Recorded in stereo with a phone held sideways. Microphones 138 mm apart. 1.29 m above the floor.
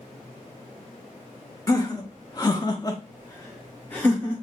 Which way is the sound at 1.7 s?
25° left (ahead or behind).